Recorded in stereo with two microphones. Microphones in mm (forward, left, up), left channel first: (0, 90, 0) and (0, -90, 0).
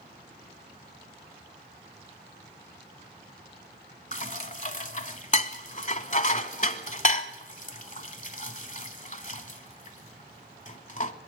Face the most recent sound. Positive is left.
turn(degrees=45)  # may be behind; listen again after turning